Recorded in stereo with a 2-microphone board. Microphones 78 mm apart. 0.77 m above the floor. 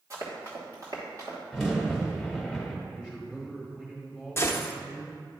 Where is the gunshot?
30° left (ahead or behind), 0.7 m.